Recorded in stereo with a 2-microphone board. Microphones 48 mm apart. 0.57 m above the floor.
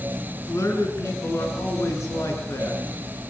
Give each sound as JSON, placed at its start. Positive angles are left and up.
{"t": 0.5, "sound": "a man speaking", "side_deg": 75, "distance_m": 6.5}